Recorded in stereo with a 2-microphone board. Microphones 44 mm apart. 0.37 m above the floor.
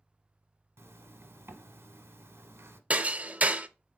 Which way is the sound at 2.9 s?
35° right (ahead or behind).